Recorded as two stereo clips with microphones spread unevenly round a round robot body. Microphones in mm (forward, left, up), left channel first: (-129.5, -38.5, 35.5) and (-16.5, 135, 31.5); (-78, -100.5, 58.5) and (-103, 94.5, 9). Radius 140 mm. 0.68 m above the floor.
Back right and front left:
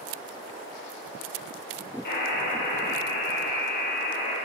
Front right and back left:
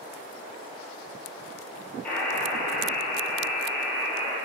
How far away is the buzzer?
About 3 m.